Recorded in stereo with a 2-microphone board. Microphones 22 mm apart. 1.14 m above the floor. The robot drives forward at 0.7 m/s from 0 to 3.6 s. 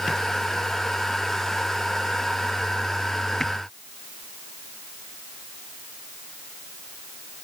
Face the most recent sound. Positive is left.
No sound to turn to.